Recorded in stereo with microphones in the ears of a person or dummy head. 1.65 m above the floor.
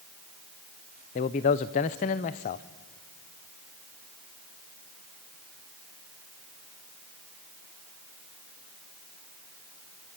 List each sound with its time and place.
1.1 s a man speaking: 25° left (ahead or behind), 0.6 m